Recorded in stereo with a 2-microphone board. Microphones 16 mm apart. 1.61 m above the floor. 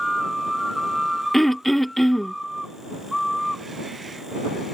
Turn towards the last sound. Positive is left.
turn(degrees=20)  # may be behind; listen again after turning